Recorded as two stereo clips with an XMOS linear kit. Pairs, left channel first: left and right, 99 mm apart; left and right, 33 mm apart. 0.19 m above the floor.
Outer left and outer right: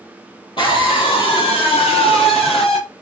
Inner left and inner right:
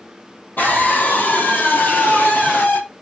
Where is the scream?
60° left (ahead or behind), 5 m; by 2.8 s 75° left (ahead or behind), 4.5 m.